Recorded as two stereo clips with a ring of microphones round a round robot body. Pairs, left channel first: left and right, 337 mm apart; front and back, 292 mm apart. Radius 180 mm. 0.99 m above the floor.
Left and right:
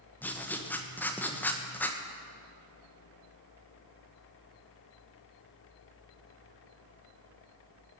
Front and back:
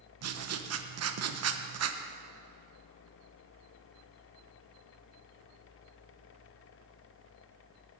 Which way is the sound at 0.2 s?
175° left.